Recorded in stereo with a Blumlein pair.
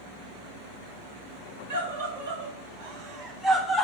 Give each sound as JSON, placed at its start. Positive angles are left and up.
{"t": 1.7, "sound": "a scream", "azimuth_deg": -55, "distance_m": 2.0}